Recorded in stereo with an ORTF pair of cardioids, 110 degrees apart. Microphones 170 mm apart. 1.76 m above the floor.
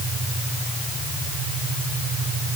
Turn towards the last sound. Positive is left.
No sound to turn to.